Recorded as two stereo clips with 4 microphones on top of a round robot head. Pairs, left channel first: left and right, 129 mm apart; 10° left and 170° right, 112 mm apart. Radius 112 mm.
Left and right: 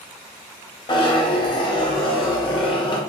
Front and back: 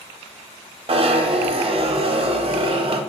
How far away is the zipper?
About 0.5 m.